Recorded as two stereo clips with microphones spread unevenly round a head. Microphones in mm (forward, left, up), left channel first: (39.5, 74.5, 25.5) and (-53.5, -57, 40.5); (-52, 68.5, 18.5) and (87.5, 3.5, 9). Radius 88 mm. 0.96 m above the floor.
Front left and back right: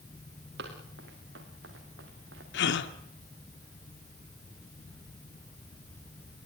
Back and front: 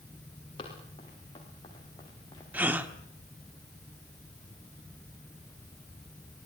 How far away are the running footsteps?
About 6 m.